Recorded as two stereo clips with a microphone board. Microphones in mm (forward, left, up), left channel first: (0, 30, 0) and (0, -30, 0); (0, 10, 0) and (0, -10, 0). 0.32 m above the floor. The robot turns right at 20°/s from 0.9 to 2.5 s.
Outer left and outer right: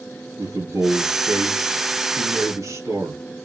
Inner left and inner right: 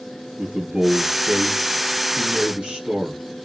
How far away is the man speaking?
About 6 m.